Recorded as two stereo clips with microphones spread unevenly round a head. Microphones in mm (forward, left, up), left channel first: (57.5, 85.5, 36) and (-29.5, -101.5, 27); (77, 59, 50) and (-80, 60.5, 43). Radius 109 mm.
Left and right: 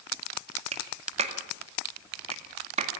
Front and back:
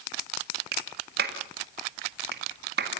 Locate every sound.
0.7 s a clap: 175° right, 2 m